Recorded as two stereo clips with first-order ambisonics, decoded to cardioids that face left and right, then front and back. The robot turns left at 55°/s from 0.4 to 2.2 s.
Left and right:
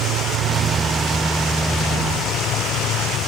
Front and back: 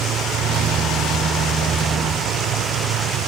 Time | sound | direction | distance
0.0 | an insect | 125° right | ?